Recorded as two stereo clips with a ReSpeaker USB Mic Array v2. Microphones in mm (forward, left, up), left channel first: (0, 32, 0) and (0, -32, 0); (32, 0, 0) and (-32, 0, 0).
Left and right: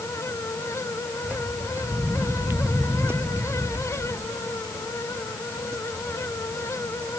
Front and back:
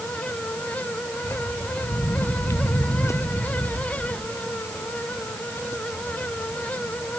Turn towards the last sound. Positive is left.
turn(degrees=-45)